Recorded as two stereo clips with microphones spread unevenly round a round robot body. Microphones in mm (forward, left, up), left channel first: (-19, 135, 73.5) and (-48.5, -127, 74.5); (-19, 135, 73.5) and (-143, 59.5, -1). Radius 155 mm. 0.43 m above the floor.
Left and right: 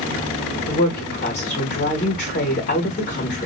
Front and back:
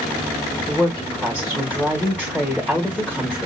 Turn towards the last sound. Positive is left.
turn(degrees=130)